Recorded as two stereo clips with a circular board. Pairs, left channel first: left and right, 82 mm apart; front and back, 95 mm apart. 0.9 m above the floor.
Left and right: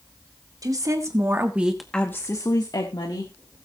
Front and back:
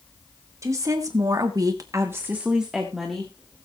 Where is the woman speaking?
125° right, 2 m; by 3.3 s 85° left, 2 m.